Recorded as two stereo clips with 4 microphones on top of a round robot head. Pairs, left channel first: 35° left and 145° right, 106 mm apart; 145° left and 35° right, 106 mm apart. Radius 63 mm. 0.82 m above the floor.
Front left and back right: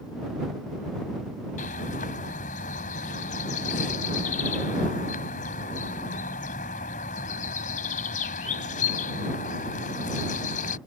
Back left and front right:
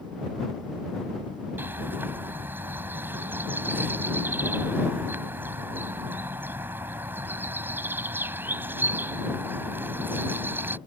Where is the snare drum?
I don't hear a snare drum.